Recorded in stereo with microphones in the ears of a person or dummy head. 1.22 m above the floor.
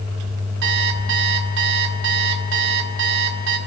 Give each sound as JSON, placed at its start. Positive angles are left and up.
{"t": 0.6, "sound": "an alarm clock", "side_deg": -65, "distance_m": 2.5}